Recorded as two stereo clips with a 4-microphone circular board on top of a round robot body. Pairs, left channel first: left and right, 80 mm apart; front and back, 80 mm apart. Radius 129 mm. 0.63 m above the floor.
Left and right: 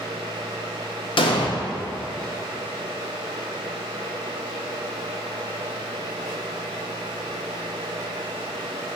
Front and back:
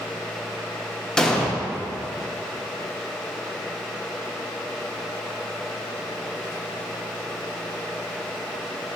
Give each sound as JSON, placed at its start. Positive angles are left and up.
{"t": 1.2, "sound": "an explosion", "azimuth_deg": 85, "distance_m": 0.7}